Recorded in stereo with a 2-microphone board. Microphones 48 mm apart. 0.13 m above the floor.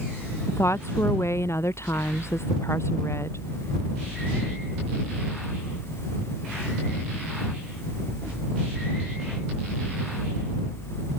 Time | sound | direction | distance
0.5 | a woman speaking | 70° left (ahead or behind) | ?